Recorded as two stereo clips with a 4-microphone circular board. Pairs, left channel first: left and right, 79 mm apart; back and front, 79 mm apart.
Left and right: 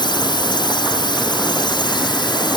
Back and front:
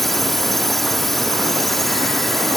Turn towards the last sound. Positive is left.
turn(degrees=95)